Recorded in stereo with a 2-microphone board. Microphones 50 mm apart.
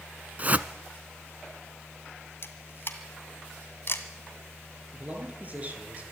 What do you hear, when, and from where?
0.4 s a whoosh: 30° right (ahead or behind), 0.7 m
2.4 s a camera shutter: 50° left (ahead or behind), 1.8 m
4.9 s a man speaking: 30° right (ahead or behind), 5 m